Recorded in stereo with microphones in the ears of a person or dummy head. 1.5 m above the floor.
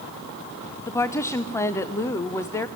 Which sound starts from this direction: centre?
A woman speaking, at 0.9 s.